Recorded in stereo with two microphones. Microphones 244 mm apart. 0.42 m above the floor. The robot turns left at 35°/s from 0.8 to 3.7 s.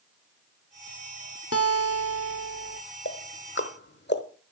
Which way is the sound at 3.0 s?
50° left (ahead or behind).